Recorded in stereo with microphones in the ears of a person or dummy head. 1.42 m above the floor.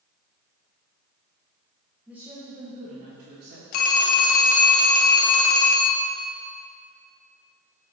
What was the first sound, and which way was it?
A woman speaking, centre (ahead or behind).